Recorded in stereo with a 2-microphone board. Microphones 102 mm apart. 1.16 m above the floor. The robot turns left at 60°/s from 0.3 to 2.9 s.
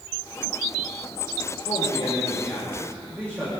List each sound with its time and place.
1.6 s a man speaking: 70° left, 5 m; by 3.5 s 5° right, 5 m